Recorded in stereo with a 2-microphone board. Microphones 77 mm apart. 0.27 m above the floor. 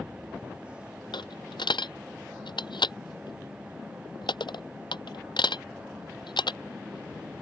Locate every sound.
1.1 s a dropped coin: 80° left